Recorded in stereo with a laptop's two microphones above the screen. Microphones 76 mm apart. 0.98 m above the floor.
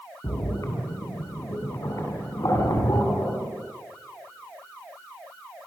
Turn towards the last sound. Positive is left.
turn(degrees=50)  # may be behind; listen again after turning